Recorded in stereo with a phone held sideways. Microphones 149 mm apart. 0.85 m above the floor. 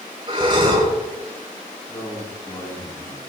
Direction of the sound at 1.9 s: 20° left (ahead or behind).